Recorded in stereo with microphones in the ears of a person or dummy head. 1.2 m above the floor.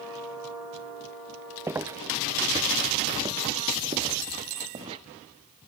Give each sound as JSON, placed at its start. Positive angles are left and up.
{"t": 1.7, "sound": "footsteps", "side_deg": -15}